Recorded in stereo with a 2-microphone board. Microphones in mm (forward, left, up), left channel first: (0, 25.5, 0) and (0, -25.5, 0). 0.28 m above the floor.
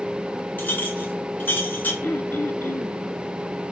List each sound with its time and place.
0.6 s a clink: 40° left (ahead or behind), 2.5 m
2.0 s throat clearing: 50° left (ahead or behind), 0.8 m